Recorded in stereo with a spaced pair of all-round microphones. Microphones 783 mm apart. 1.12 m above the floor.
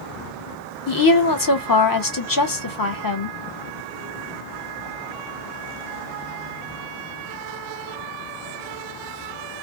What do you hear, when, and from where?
0.9 s a woman speaking: 30° left (ahead or behind), 0.7 m